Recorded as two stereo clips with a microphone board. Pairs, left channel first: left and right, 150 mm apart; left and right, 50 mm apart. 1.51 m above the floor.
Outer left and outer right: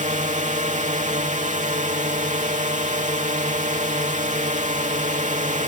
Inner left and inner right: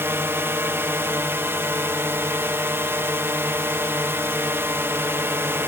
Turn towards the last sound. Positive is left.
turn(degrees=-55)  # may be behind; listen again after turning